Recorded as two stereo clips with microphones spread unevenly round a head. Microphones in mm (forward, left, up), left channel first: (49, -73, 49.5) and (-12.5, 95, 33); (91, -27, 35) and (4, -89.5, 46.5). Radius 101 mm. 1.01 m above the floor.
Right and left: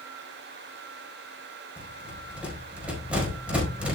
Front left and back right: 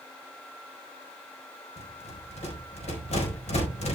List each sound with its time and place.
1.8 s a rattle: 25° left, 4 m